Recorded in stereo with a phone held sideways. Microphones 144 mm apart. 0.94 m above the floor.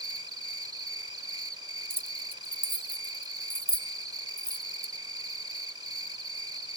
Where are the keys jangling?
15° right (ahead or behind).